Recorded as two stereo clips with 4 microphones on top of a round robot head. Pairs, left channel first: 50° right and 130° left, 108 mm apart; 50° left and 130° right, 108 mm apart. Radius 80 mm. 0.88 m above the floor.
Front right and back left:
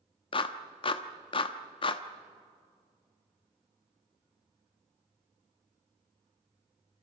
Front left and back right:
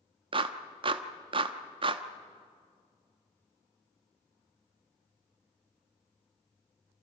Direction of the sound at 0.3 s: 90° right.